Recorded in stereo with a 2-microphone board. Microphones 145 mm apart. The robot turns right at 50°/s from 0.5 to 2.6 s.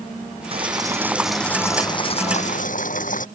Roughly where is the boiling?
Ahead right.